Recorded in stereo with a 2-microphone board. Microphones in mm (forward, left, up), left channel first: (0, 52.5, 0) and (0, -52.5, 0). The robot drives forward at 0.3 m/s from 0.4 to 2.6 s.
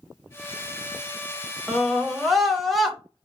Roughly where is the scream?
Centre.